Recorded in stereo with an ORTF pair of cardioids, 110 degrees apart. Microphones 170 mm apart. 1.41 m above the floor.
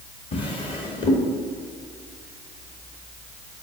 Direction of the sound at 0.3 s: 35° left.